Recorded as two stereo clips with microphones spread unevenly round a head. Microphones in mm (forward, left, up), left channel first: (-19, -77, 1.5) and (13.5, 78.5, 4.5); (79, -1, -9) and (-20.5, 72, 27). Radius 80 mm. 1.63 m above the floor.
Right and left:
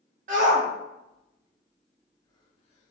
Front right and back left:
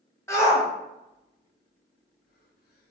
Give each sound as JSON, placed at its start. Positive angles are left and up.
{"t": 0.3, "sound": "a shout", "azimuth_deg": 35, "distance_m": 1.1}